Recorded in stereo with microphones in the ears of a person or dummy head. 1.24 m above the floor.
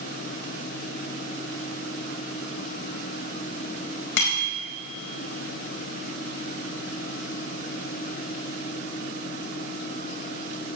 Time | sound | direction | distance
4.2 | a bicycle bell | 65° left (ahead or behind) | 4.5 m